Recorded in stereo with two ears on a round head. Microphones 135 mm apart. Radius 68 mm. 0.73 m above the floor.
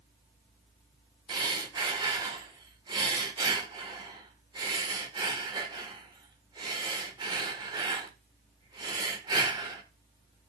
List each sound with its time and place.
1.3 s breathing: 30° right (ahead or behind), 1.6 m